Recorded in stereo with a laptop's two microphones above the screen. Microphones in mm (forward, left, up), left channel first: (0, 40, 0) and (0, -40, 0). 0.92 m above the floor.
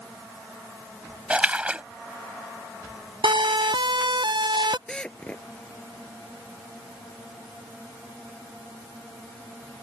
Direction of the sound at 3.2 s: 80° right.